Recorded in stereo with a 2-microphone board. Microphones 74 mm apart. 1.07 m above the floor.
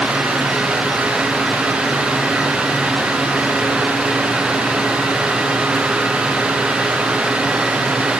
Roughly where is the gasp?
I don't hear a gasp.